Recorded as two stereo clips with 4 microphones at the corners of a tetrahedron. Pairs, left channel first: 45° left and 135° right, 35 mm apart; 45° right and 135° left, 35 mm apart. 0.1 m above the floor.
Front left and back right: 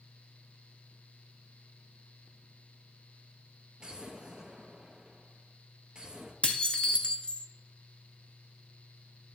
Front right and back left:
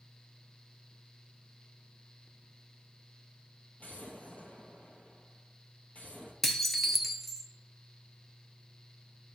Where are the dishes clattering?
35° left, 0.8 m.